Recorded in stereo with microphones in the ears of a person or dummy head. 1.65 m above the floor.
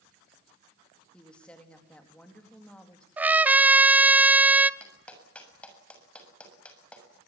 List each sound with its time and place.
1.1 s a woman speaking: 5° left (ahead or behind), 3.5 m
3.2 s a trumpet: 5° right (ahead or behind), 0.8 m
4.8 s a clap: 10° left (ahead or behind), 7 m